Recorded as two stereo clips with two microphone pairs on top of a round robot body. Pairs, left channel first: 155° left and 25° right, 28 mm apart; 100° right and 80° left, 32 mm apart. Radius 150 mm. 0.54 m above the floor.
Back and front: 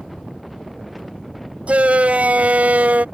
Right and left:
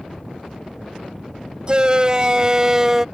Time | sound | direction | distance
1.7 | a shout | 10° left | ?